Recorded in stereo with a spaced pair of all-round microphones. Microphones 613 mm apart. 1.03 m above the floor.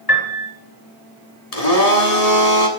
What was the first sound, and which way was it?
A piano, 35° left (ahead or behind).